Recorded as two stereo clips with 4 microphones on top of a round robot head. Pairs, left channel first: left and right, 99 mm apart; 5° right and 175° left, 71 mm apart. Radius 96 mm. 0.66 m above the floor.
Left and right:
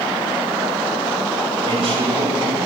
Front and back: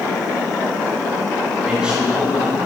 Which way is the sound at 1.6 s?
105° right.